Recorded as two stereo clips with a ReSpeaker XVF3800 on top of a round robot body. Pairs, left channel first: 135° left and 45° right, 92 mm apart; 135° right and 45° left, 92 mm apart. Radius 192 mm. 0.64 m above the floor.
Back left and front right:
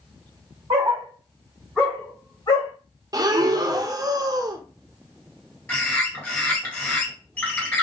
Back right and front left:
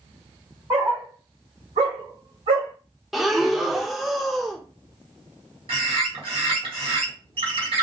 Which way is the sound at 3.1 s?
45° right.